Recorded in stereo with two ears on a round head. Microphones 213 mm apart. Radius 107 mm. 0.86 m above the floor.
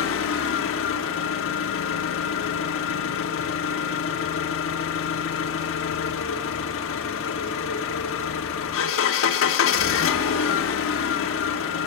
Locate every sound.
0.0 s an engine running: 60° left (ahead or behind), 1.0 m